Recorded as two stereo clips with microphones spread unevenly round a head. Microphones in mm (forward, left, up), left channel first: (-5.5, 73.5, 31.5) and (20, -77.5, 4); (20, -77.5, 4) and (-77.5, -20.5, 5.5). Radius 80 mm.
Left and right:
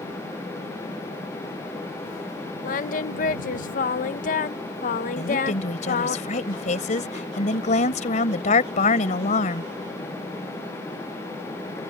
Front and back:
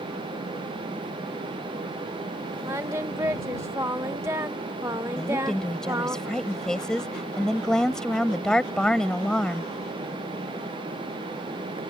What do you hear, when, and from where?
2.6 s singing: 80° left
5.2 s a woman speaking: 55° left